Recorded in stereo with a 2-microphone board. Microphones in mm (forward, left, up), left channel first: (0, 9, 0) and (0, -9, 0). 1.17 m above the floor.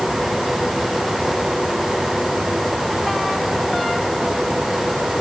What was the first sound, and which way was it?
Only background noise.